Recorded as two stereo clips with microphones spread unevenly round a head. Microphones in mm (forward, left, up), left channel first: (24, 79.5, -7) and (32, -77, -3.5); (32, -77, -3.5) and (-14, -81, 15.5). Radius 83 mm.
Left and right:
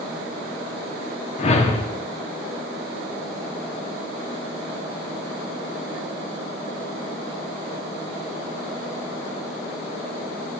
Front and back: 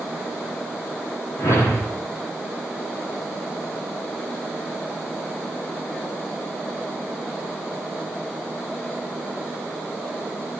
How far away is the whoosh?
About 1.7 m.